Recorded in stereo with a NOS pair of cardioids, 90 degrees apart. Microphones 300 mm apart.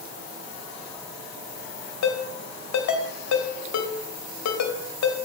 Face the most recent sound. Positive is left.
turn(degrees=65)